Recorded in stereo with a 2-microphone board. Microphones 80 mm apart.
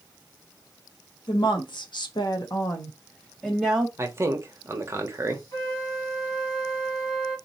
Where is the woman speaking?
75° left (ahead or behind), 1.5 m; by 3.9 s centre (ahead or behind), 1.5 m.